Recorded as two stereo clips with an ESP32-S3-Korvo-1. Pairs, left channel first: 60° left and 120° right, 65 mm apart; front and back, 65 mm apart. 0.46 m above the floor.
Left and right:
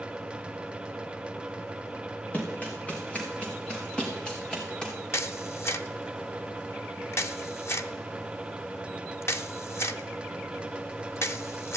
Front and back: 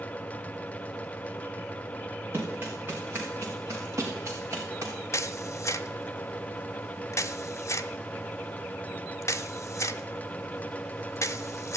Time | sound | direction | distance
2.3 | running footsteps | 125° left | 3.5 m
5.1 | a camera shutter | 25° left | 0.7 m